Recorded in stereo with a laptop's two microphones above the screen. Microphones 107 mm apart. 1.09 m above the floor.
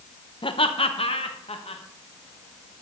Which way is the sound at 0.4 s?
55° left (ahead or behind).